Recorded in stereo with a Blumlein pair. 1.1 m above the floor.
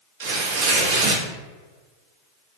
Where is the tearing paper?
50° right, 0.8 m.